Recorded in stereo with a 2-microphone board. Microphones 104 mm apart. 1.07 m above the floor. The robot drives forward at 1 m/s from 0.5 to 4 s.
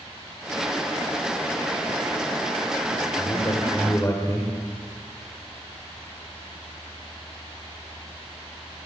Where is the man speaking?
35° left (ahead or behind), 3 m; by 4.5 s 25° left (ahead or behind), 4 m.